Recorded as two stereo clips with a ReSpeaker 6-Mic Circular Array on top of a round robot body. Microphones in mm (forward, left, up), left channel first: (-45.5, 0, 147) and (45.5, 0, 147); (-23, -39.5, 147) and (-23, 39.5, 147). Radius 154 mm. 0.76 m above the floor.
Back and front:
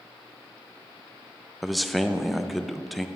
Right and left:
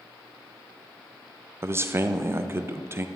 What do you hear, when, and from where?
1.6 s a man speaking: 90° left, 0.7 m